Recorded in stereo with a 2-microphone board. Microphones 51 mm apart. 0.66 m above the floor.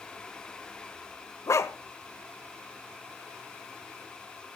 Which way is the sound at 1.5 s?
70° left (ahead or behind).